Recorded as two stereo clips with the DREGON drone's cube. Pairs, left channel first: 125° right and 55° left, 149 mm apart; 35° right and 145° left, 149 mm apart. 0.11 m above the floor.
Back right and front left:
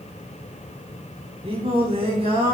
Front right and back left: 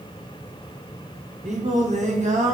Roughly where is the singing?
Left.